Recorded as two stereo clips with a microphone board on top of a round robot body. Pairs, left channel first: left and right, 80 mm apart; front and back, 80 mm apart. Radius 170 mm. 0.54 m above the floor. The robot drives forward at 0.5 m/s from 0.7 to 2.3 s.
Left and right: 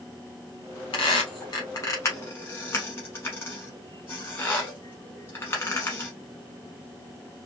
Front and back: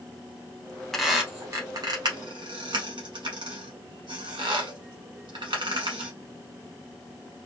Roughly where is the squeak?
Left.